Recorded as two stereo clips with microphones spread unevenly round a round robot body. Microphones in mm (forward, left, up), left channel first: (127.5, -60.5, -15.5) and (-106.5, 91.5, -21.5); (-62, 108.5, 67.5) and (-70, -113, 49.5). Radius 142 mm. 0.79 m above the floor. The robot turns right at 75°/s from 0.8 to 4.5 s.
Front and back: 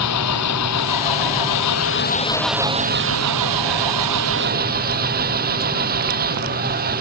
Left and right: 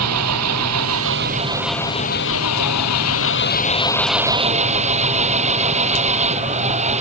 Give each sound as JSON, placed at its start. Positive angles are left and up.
{"t": 0.0, "sound": "an engine running", "azimuth_deg": -70}